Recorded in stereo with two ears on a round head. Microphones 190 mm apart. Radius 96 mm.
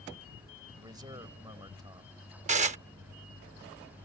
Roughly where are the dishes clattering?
Right.